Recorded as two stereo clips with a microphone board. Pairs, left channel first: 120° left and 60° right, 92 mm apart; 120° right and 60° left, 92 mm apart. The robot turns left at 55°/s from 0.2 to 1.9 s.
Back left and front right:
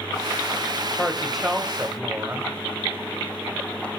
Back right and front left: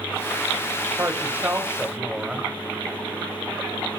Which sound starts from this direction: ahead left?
A woman speaking, at 1.0 s.